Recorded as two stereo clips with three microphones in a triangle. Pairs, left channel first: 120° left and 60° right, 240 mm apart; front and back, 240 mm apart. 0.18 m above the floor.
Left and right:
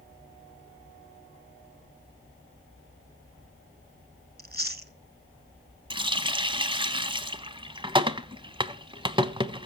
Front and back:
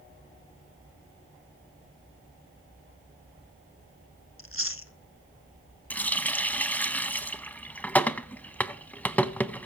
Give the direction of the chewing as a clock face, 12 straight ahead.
1 o'clock.